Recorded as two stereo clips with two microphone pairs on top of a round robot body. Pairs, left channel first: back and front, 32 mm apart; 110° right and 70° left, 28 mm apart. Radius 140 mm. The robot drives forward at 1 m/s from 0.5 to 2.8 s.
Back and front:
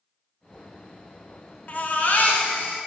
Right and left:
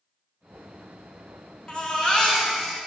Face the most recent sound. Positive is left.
turn(degrees=-170)